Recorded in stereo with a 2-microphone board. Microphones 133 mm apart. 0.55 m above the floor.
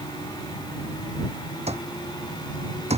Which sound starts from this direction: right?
An alarm clock, at 1.7 s.